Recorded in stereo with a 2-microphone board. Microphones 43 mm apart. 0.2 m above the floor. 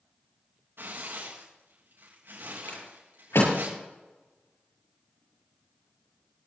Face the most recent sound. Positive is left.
turn(degrees=85)